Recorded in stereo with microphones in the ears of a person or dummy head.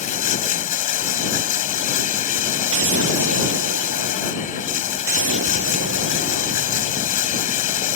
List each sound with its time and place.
0.0 s running water: 40° left (ahead or behind)
2.7 s an explosion: 85° right